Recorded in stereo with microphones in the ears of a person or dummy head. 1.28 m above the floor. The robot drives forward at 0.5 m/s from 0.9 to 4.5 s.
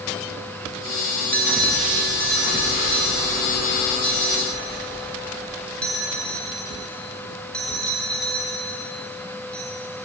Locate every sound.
1.3 s a bell: 5° left (ahead or behind), 2 m; by 9.7 s centre (ahead or behind), 3.5 m